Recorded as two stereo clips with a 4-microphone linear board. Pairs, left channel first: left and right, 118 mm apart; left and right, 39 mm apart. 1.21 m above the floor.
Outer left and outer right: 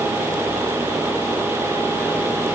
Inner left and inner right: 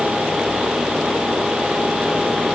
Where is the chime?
I don't hear a chime.